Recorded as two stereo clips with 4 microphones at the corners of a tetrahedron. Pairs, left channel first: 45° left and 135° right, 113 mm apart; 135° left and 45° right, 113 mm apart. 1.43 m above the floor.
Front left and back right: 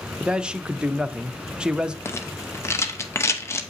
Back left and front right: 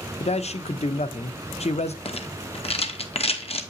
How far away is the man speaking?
About 0.5 m.